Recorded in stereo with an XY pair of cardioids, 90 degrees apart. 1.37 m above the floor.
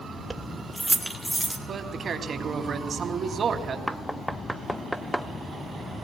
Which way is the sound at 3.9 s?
Straight ahead.